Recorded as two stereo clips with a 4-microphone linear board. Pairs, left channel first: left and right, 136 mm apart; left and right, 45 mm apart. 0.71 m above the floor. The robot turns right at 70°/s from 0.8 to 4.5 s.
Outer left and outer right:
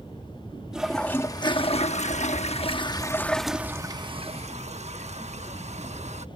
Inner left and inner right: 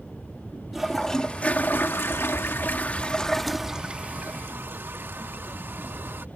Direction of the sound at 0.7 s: 5° right.